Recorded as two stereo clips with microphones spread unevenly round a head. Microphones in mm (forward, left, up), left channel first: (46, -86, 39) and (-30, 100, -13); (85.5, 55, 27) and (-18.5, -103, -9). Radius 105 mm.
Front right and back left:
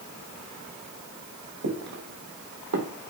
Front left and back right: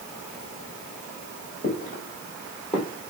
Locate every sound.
1.6 s footsteps: 100° left, 4.5 m; by 2.9 s 120° left, 4.5 m